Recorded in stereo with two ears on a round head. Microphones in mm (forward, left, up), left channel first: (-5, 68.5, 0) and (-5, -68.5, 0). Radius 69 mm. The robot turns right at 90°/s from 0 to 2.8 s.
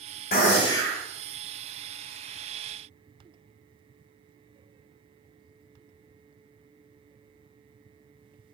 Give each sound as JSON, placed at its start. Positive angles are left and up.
{"t": 0.3, "sound": "a gunshot", "azimuth_deg": 115, "distance_m": 2.0}